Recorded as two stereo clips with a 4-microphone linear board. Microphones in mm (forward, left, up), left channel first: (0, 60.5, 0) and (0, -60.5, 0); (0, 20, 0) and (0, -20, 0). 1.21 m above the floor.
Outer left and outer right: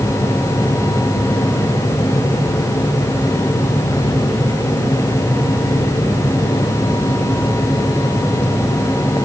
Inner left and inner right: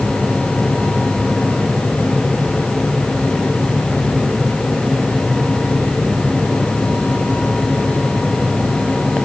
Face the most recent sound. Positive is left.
No sound to turn to.